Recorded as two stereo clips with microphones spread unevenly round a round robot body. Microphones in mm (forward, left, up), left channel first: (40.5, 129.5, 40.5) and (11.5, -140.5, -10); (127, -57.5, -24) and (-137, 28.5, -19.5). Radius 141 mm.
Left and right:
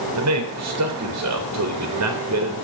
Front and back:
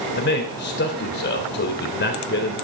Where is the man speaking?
70° right, 3.5 m.